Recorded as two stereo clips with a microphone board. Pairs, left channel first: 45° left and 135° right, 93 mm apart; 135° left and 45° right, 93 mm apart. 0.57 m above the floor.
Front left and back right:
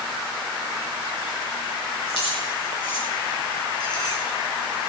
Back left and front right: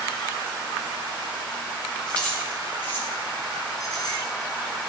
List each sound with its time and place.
2.1 s keys jangling: 55° left, 6 m; by 4.2 s 90° left, 5 m